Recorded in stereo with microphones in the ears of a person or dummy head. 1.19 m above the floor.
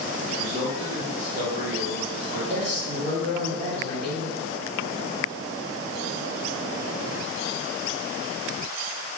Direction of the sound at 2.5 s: 35° right (ahead or behind).